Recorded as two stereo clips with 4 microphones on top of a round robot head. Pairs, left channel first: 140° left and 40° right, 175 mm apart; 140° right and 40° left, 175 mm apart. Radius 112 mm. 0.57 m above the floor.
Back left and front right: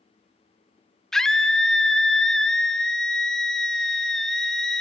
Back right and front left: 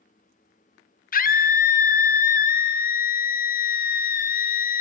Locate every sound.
1.1 s a scream: 130° right, 1.0 m